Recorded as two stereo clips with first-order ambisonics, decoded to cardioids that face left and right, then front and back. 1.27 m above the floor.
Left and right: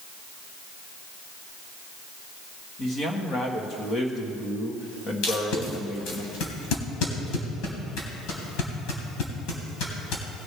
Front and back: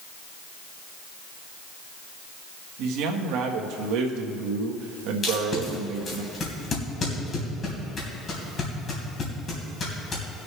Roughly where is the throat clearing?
I don't hear throat clearing.